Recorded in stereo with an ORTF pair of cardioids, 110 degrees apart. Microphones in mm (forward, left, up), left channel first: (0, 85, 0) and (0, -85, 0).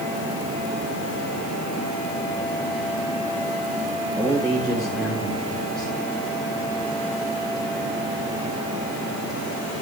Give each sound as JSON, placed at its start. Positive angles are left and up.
{"t": 4.2, "sound": "a man speaking", "azimuth_deg": -5, "distance_m": 5.5}